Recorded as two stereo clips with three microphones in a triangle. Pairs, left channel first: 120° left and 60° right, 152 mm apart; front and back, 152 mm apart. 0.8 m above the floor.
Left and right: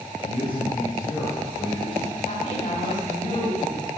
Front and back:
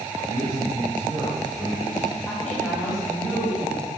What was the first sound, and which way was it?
A man speaking, 120° left.